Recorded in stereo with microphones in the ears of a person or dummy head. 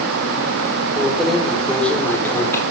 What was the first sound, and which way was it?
Keys jangling, 5° right (ahead or behind).